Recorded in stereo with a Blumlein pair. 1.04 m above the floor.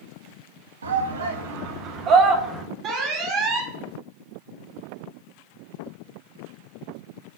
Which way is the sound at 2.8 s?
30° right.